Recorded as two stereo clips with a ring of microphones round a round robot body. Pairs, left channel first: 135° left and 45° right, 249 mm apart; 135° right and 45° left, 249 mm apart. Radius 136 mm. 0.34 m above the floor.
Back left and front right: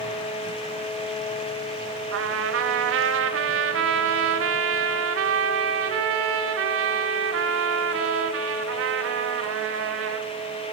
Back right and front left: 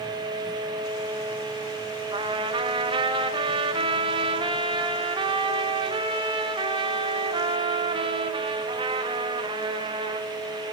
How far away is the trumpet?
About 0.9 m.